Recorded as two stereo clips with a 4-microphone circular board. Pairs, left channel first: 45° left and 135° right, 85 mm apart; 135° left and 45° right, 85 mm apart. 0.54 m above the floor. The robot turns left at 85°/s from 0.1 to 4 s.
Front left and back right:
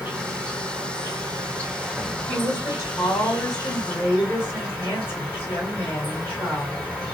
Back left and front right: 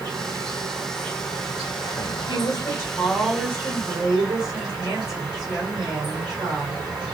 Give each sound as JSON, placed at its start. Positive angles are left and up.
{"t": 0.0, "sound": "an insect", "azimuth_deg": -60, "distance_m": 2.5}
{"t": 2.3, "sound": "a woman speaking", "azimuth_deg": 130, "distance_m": 3.0}